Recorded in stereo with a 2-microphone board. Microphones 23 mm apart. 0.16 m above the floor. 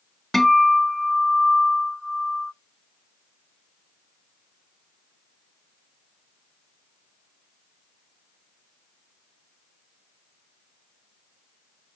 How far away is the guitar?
About 0.6 m.